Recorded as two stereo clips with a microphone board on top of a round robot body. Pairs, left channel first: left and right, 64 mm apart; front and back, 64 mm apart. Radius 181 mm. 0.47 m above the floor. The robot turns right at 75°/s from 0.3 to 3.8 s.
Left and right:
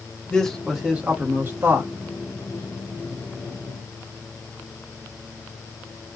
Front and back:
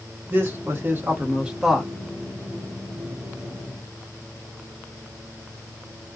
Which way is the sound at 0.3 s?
155° left.